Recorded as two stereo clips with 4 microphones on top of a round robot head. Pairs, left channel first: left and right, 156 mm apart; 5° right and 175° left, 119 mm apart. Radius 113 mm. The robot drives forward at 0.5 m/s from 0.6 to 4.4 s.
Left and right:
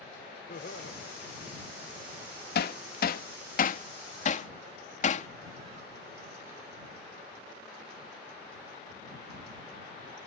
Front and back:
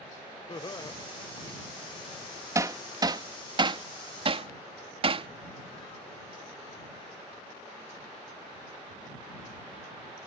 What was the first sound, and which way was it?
Laughter, 45° left.